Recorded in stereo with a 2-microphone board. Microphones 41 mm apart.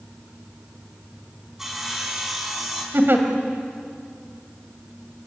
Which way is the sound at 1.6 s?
10° right (ahead or behind).